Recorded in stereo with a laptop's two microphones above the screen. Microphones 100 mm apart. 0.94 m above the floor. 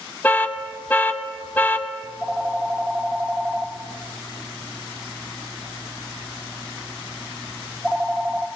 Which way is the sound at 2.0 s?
Centre (ahead or behind).